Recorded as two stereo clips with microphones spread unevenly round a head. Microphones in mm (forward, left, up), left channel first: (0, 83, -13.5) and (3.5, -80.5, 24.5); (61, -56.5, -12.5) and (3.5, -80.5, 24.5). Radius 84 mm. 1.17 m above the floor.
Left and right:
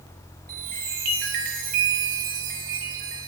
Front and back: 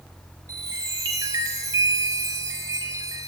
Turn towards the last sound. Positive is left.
turn(degrees=-130)